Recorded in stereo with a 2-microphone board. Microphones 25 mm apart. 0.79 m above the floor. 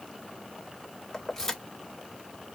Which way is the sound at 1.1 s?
10° left (ahead or behind).